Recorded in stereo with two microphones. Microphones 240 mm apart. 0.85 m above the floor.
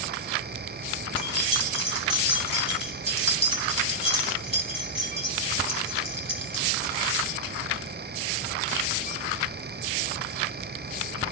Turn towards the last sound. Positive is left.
turn(degrees=25)  # may be behind; listen again after turning